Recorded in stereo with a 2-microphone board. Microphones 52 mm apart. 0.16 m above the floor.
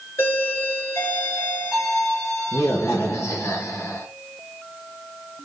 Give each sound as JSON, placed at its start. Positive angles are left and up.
{"t": 0.2, "sound": "a doorbell", "side_deg": 60, "distance_m": 2.5}